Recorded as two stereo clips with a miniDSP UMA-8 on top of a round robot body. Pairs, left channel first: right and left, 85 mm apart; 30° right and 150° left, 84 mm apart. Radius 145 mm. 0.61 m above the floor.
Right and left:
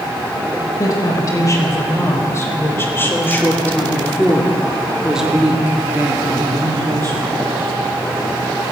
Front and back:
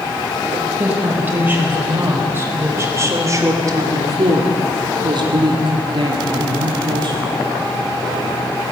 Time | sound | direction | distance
0.8 | a woman speaking | 135° right | 5 m